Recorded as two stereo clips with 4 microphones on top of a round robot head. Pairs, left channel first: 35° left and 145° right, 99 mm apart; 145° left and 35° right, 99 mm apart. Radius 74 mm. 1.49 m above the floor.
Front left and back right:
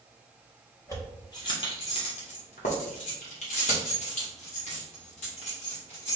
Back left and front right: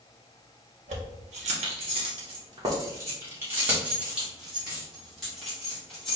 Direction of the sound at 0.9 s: 30° right.